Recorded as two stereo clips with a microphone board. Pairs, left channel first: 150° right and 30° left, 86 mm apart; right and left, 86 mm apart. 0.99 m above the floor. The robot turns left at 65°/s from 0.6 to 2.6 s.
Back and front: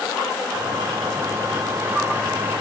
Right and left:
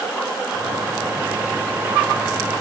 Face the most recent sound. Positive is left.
No sound to turn to.